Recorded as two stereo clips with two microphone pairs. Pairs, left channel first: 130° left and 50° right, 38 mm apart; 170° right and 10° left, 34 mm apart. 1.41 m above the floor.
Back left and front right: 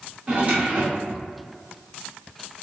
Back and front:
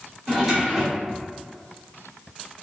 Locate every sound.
0.3 s a drawer: 70° right, 1.2 m